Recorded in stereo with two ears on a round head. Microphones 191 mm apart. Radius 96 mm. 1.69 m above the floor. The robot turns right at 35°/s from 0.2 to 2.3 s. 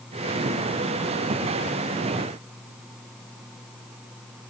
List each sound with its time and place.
Only background noise.